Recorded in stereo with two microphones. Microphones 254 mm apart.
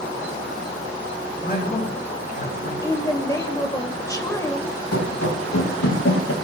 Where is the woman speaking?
15° left (ahead or behind), 1.6 m.